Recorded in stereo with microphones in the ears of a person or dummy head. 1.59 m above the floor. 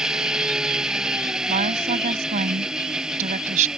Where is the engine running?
5° right (ahead or behind).